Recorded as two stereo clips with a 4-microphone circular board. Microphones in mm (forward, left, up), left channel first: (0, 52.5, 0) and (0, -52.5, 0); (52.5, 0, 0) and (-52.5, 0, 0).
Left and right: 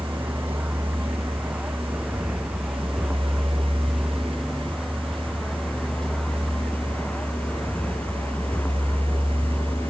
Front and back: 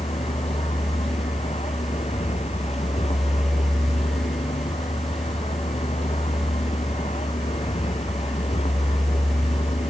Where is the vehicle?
15° right; by 9.9 s 15° left.